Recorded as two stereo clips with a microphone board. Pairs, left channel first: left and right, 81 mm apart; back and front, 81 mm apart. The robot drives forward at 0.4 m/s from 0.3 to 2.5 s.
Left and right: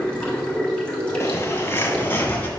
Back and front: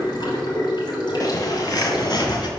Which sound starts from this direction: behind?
Running water, at 0.0 s.